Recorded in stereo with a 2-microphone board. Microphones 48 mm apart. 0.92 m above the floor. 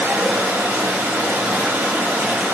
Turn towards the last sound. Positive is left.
turn(degrees=-60)  # may be behind; listen again after turning